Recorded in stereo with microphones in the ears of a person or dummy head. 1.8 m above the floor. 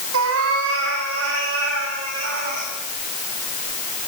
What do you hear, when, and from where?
0.1 s a cat meowing: 80° right, 4.5 m; by 2.7 s 65° right (ahead or behind), 8 m